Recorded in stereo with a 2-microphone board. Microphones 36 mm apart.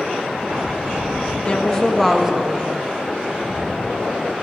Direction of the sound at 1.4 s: 30° left (ahead or behind).